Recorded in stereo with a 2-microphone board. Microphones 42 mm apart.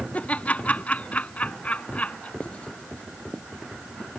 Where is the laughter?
30° left (ahead or behind).